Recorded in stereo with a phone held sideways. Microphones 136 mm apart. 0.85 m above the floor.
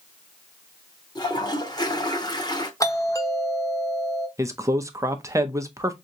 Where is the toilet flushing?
30° left (ahead or behind), 0.7 m.